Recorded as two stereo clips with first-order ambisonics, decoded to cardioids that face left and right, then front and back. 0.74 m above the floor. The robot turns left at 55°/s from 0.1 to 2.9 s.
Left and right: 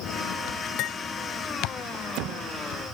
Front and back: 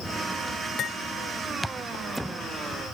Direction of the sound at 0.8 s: 60° left.